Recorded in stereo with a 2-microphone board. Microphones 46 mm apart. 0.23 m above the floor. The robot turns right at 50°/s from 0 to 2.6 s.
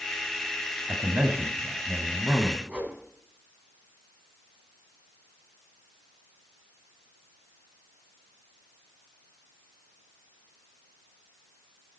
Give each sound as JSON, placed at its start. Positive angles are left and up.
{"t": 0.9, "sound": "a man speaking", "azimuth_deg": -90, "distance_m": 1.3}
{"t": 2.7, "sound": "a whoosh", "side_deg": -30, "distance_m": 2.0}